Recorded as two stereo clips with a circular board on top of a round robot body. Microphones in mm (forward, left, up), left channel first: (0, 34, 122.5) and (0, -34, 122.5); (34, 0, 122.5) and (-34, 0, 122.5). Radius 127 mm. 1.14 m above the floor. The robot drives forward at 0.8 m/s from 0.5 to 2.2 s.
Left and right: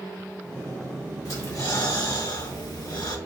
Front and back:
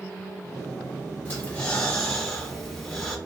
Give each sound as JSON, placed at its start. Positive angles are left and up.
{"t": 1.2, "sound": "breathing", "azimuth_deg": 60, "distance_m": 1.7}